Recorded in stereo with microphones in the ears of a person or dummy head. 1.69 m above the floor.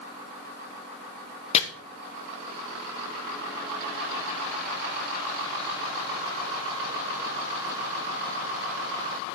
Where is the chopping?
30° left (ahead or behind), 0.9 m.